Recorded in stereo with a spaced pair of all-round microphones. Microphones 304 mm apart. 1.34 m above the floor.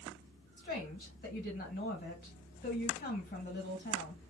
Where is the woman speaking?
30° left (ahead or behind), 1.9 m.